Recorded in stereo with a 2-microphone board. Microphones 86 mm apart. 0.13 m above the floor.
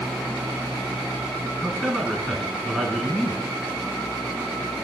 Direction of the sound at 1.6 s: 5° left (ahead or behind).